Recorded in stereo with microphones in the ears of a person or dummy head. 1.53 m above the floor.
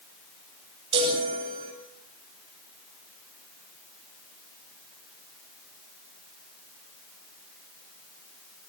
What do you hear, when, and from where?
0.9 s a chime: 30° right (ahead or behind), 7 m